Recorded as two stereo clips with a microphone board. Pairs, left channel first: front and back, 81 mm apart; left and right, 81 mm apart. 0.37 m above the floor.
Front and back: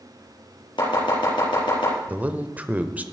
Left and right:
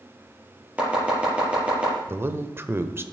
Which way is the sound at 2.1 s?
125° right.